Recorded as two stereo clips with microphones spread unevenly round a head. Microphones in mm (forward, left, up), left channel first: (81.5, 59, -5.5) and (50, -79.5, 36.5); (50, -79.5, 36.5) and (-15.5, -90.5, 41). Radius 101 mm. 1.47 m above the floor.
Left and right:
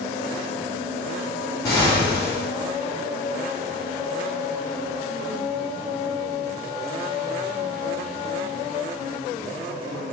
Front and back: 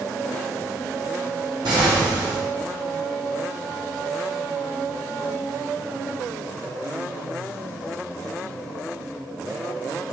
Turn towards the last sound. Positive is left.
turn(degrees=160)